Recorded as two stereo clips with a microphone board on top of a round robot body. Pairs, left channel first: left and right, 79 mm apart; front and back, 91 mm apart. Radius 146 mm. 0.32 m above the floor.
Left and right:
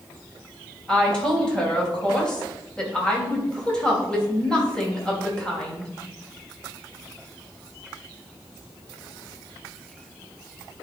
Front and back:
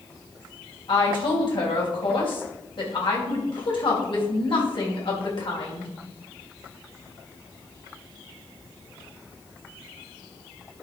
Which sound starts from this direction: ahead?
A woman speaking, at 0.9 s.